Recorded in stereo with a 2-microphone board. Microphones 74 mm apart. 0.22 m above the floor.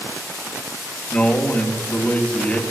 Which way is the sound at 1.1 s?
20° left (ahead or behind).